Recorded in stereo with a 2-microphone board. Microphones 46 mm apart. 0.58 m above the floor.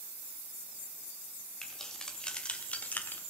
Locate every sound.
1.6 s keys jangling: 10° left (ahead or behind), 2.5 m; by 3.2 s 45° left (ahead or behind), 1.2 m